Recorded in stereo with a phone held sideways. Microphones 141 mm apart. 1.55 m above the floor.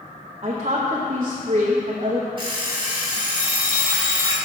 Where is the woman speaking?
45° right (ahead or behind), 0.8 m.